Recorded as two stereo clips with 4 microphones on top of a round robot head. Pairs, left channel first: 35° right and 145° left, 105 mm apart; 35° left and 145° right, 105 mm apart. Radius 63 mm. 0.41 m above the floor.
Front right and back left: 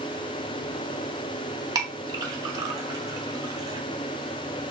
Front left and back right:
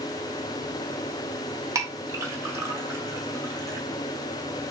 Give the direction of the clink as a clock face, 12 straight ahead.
6 o'clock.